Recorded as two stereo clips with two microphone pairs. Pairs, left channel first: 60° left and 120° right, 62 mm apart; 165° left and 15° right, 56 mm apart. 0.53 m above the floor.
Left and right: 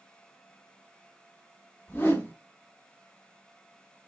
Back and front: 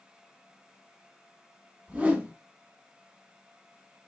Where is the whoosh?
30° left, 1.5 m.